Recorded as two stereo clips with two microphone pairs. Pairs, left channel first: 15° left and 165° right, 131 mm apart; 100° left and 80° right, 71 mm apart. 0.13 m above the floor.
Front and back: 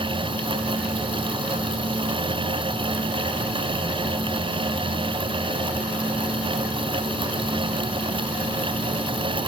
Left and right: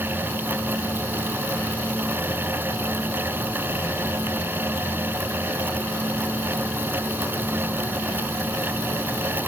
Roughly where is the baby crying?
No baby crying in this recording.